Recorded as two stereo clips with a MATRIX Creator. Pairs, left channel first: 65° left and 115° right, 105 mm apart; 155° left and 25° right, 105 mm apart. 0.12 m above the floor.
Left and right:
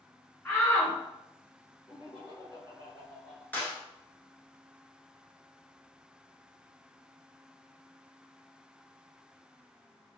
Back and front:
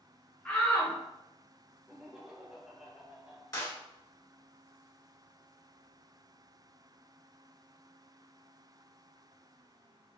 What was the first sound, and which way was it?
A shout, 110° left.